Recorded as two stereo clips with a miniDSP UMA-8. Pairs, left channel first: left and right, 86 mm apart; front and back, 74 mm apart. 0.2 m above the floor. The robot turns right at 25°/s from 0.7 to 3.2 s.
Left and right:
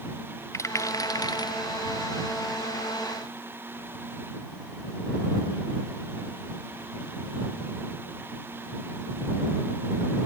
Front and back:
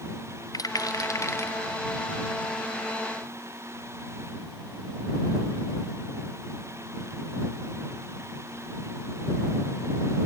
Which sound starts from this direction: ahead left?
A rattle, at 0.5 s.